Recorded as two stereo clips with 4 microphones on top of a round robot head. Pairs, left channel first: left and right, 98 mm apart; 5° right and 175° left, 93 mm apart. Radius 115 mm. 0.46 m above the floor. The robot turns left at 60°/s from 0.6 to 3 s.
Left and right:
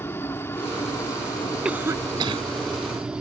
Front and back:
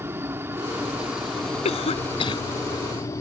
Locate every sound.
0.0 s a helicopter: 135° left; by 3.2 s 15° right
1.6 s a cough: 5° right; by 2.4 s 55° right